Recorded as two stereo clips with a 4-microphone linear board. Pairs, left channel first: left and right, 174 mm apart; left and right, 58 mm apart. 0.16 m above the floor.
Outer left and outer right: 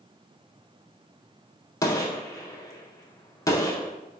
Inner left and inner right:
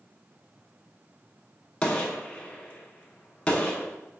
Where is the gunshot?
20° left (ahead or behind), 0.6 m.